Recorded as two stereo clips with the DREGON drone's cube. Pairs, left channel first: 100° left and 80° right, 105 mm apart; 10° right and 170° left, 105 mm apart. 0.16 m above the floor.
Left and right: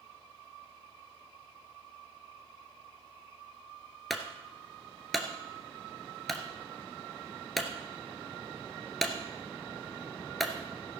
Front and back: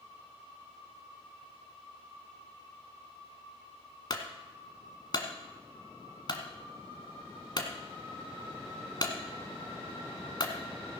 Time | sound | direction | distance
4.1 | a clunk | 10° left | 1.4 m